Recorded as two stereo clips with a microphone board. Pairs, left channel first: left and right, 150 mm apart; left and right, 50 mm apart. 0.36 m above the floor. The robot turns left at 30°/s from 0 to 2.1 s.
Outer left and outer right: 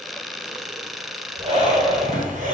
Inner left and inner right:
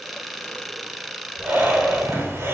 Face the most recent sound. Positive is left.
turn(degrees=-65)  # may be behind; listen again after turning